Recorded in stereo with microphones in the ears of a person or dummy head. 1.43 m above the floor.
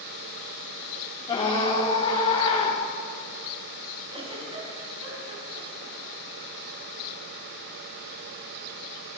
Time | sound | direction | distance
1.3 | a scream | 20° left (ahead or behind) | 4 m
4.1 | a giggle | 30° right (ahead or behind) | 5 m